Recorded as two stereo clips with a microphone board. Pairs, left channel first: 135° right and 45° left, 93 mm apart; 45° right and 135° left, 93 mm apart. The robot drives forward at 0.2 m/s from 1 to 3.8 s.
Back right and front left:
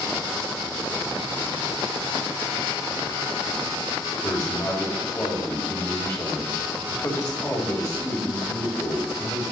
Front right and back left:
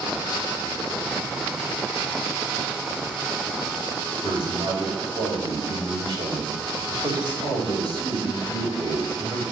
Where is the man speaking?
170° left, 4 m.